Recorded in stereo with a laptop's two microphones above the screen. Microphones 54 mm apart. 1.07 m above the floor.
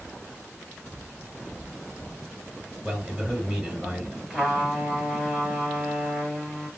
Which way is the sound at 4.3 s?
Centre (ahead or behind).